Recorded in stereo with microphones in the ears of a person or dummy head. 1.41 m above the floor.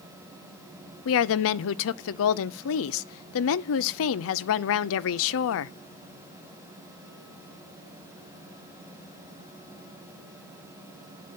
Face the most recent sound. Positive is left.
turn(degrees=70)  # may be behind; listen again after turning